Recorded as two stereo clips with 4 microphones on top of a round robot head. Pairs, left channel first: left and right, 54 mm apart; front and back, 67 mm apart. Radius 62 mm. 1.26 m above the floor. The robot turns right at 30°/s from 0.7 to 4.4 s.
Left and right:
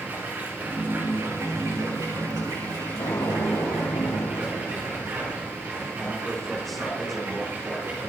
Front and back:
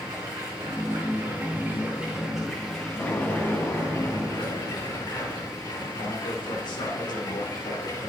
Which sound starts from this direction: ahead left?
An explosion, at 3.0 s.